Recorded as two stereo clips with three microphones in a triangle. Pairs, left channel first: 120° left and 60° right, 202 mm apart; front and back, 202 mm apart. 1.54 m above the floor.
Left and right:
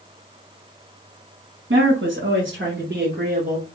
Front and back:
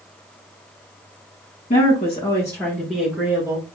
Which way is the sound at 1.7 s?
55° right.